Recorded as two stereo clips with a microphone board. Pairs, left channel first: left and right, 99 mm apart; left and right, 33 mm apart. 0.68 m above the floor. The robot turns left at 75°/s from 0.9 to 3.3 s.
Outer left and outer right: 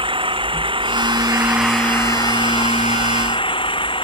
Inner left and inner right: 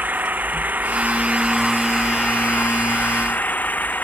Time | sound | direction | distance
0.0 | an engine running | 120° right | ?